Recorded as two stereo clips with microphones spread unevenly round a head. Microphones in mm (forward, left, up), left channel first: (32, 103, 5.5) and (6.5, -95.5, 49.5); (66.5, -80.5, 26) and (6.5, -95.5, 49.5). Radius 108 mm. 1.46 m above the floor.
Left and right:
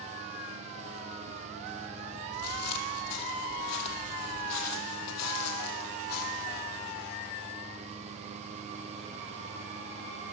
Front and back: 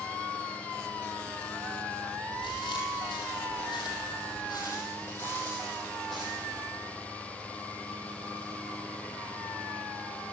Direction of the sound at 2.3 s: 65° left.